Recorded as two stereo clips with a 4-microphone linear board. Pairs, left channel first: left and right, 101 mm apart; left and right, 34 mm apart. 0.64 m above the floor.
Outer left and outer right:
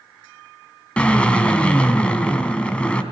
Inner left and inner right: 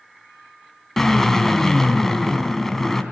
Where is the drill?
10° left (ahead or behind), 2.5 m.